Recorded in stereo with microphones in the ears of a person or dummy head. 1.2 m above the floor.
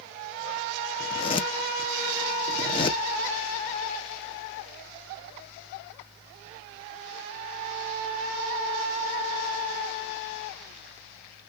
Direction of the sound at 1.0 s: 25° left (ahead or behind).